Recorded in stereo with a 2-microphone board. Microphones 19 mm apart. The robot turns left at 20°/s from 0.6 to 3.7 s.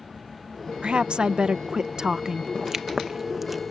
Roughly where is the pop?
Right.